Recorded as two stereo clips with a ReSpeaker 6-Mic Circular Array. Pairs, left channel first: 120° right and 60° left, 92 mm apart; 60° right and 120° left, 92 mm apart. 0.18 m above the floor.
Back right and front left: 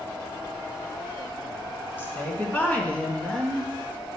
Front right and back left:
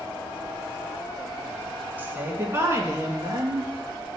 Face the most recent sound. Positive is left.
turn(degrees=160)